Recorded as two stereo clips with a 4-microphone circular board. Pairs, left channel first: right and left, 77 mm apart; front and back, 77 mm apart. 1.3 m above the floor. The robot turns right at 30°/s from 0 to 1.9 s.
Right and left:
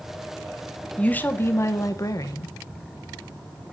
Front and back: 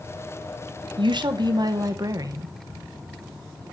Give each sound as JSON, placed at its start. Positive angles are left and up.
{"t": 1.0, "sound": "a woman speaking", "azimuth_deg": -165, "distance_m": 0.9}